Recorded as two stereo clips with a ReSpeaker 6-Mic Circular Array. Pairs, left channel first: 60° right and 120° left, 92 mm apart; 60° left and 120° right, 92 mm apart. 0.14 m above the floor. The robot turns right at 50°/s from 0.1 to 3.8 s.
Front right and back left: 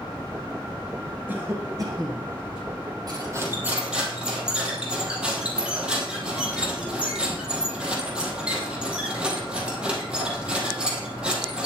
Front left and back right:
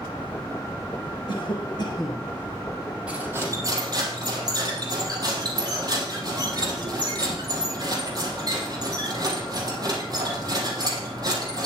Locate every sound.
1.3 s a cough: 55° left, 2 m; by 2.3 s 105° left, 2 m
3.1 s cutlery clinking: 165° left, 3 m; by 11.7 s 160° right, 3 m